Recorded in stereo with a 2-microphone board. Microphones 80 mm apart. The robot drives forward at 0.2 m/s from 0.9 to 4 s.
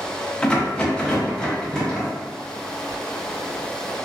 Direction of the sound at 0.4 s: 15° left (ahead or behind).